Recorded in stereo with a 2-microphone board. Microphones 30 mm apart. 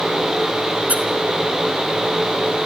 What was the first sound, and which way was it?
A squeak, 60° right (ahead or behind).